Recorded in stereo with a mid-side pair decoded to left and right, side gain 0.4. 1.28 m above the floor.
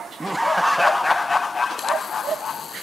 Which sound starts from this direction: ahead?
Laughter, at 0.2 s.